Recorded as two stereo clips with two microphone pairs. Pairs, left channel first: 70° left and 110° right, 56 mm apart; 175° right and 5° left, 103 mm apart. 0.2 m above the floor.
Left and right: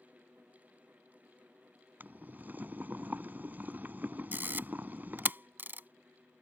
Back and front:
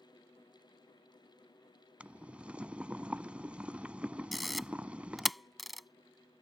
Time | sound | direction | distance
2.0 | boiling | 70° right | ?
4.3 | a camera shutter | 85° right | ?